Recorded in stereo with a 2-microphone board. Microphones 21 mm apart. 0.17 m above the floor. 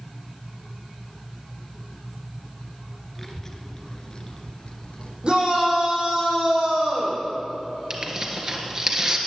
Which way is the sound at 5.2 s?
40° right (ahead or behind).